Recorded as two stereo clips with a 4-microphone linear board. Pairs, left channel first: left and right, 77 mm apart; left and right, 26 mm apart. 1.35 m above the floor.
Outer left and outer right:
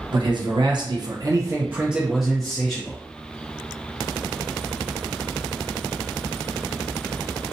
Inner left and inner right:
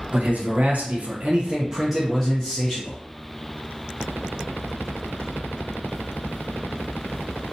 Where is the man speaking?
75° right (ahead or behind), 0.9 m; by 3.0 s 20° left (ahead or behind), 0.9 m.